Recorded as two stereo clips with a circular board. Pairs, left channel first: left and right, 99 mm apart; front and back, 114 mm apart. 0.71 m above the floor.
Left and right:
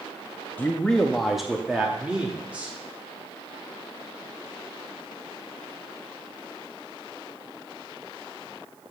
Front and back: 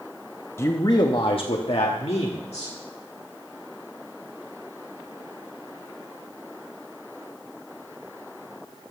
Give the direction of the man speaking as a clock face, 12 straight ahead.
11 o'clock.